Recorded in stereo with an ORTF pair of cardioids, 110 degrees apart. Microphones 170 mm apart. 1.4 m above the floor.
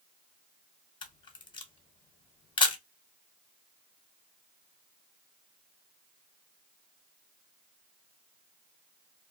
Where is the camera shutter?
30° left, 0.8 m.